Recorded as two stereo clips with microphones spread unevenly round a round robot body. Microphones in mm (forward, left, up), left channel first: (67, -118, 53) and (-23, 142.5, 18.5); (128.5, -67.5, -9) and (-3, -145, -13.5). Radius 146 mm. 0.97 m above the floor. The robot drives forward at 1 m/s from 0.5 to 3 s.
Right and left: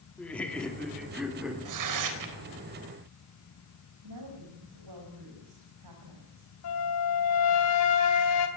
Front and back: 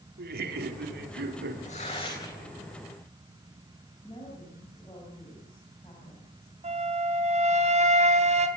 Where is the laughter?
160° right, 2.5 m; by 1.6 s 165° right, 3.5 m.